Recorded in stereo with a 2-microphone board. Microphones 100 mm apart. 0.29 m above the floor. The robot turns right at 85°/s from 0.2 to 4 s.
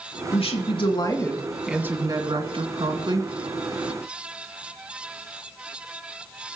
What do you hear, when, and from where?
0.3 s a woman speaking: 70° left, 2.5 m; by 3.3 s 35° right, 2.5 m